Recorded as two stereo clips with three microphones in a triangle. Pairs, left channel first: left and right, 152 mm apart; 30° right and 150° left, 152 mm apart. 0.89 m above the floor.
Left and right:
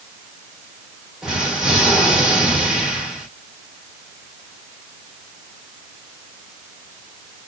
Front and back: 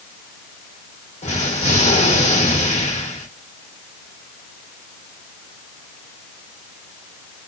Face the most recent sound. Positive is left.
turn(degrees=-5)